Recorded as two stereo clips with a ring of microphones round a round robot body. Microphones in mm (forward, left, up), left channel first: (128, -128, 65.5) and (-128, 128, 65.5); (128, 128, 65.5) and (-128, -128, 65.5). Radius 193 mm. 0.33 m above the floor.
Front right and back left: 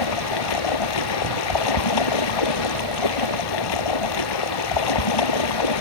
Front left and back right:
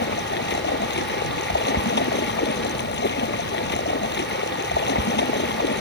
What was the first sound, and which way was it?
Running water, 20° right.